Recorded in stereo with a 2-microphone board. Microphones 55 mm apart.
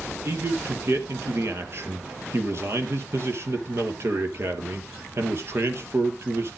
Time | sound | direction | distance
0.2 | a man speaking | 55° right (ahead or behind) | 2.5 m